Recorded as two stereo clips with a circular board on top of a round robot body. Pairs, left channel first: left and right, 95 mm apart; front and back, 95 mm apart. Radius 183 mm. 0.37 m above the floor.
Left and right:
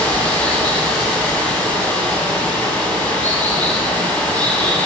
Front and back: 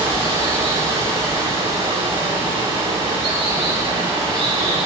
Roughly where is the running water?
Behind.